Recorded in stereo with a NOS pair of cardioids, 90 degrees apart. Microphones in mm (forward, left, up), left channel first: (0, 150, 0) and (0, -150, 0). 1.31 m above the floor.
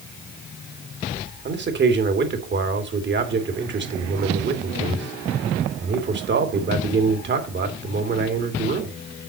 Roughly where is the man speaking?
Ahead right.